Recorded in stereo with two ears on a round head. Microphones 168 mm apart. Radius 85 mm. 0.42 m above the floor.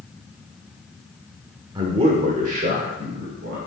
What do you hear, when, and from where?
1.8 s a man speaking: 25° right (ahead or behind), 1.1 m; by 3.6 s 60° right (ahead or behind), 2 m